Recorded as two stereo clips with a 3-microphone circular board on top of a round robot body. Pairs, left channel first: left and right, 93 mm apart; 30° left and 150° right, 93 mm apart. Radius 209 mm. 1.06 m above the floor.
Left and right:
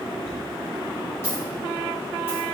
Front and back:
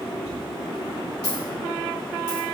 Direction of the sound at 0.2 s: 30° left.